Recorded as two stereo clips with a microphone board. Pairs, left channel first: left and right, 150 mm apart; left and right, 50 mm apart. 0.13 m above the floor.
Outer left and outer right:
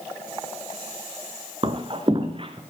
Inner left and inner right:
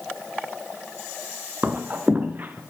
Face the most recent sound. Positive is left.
turn(degrees=-35)  # may be behind; listen again after turning